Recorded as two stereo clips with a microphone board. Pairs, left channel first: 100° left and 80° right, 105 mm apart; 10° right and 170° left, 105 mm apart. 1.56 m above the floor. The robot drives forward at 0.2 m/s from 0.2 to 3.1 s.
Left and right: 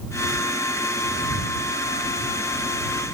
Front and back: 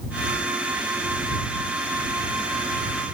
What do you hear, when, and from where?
Only background noise.